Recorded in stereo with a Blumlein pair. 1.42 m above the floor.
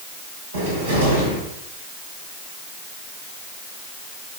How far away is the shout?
I don't hear a shout.